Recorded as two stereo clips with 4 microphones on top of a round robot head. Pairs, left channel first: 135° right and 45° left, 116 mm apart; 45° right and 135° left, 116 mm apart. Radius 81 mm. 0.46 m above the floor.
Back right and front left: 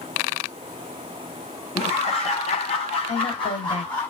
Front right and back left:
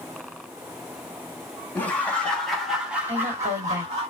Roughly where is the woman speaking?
Behind right.